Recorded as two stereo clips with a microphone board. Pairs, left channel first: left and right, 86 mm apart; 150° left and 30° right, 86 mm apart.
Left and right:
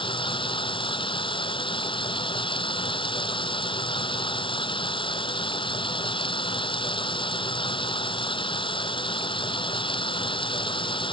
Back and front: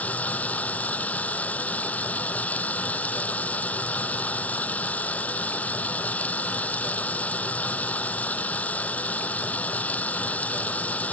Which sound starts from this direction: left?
Running water, at 0.0 s.